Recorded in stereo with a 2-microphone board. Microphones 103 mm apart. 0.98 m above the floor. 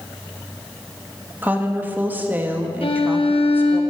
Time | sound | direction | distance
1.4 | a woman speaking | 20° right (ahead or behind) | 1.5 m
2.8 | a violin | 60° left (ahead or behind) | 1.2 m